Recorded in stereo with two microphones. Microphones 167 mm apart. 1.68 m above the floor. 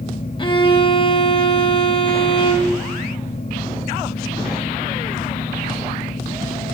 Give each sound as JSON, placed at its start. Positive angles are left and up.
{"t": 0.4, "sound": "a violin", "side_deg": 30, "distance_m": 0.7}